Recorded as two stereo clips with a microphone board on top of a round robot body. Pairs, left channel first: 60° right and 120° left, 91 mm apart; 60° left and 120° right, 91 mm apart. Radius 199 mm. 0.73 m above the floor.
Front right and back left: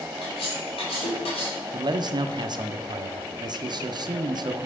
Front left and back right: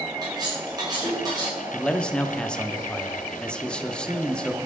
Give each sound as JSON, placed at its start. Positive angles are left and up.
{"t": 0.2, "sound": "cutlery clinking", "azimuth_deg": -75, "distance_m": 2.0}
{"t": 1.7, "sound": "a man speaking", "azimuth_deg": 140, "distance_m": 0.8}